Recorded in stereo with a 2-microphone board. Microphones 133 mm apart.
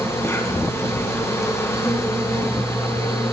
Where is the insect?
20° left (ahead or behind), 0.9 m.